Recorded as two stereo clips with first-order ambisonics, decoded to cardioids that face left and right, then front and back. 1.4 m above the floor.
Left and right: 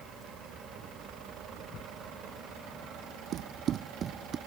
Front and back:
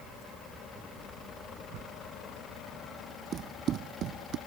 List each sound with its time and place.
1.7 s a whoosh: 145° left
3.3 s running footsteps: 125° right; by 4.4 s 150° right